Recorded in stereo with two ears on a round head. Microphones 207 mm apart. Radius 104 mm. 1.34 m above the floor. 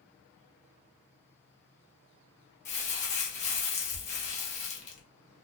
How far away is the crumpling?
About 0.7 m.